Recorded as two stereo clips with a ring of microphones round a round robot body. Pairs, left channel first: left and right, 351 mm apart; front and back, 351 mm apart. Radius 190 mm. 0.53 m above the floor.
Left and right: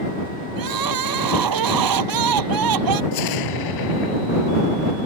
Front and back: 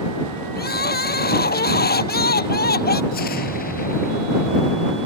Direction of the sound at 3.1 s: 70° left.